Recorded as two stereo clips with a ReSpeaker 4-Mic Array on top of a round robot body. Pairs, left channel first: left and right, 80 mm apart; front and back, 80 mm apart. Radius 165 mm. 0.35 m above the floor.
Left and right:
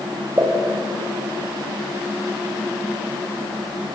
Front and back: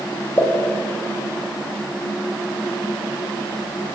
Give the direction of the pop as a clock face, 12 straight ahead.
2 o'clock.